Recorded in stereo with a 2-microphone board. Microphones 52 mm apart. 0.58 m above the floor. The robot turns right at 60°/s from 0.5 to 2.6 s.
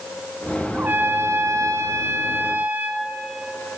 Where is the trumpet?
145° right, 2 m; by 3.1 s 35° right, 2 m.